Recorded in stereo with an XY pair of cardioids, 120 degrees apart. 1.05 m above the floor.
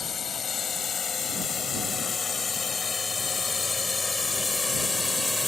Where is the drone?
40° left; by 5.5 s 10° left.